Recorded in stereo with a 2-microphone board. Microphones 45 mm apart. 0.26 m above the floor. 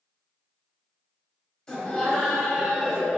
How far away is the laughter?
About 1.3 m.